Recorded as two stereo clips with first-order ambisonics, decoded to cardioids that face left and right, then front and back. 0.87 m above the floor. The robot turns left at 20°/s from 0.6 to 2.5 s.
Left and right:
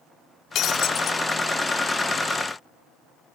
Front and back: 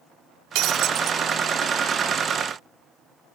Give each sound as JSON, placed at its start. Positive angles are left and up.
{"t": 0.6, "sound": "breaking glass", "azimuth_deg": 140}